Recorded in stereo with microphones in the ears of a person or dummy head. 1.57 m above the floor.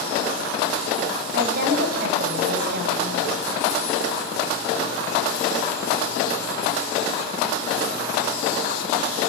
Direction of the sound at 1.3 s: 60° right (ahead or behind).